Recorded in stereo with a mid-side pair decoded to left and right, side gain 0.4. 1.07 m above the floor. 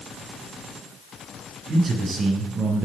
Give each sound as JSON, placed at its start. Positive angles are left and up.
{"t": 1.7, "sound": "a man speaking", "azimuth_deg": -60, "distance_m": 9.5}